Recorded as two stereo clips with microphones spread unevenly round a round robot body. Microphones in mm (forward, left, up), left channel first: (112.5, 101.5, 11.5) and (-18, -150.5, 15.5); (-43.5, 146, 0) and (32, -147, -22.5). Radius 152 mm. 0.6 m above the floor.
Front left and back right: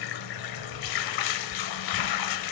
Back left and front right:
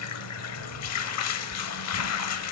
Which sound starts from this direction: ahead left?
Running water, at 0.0 s.